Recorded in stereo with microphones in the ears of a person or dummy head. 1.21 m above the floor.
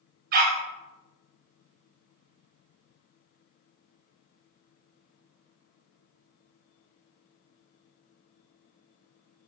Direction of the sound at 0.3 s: 55° right (ahead or behind).